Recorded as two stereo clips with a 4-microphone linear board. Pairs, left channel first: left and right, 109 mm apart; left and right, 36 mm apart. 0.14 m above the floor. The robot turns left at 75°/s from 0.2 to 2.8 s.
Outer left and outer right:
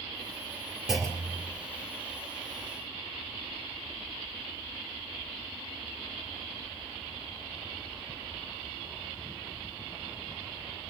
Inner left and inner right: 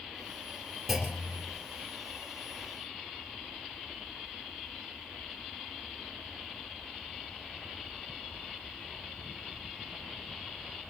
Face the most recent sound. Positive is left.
turn(degrees=40)